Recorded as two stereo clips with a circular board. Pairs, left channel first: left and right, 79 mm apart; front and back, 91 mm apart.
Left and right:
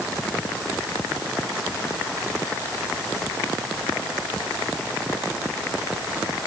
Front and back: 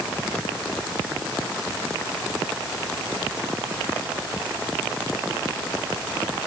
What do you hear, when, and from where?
Only background noise.